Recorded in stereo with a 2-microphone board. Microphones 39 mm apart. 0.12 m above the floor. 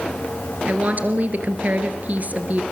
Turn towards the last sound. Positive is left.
turn(degrees=-45)  # may be behind; listen again after turning